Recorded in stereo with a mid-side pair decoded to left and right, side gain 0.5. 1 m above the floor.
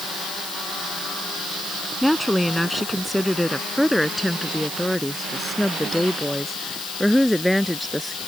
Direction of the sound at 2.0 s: 5° left.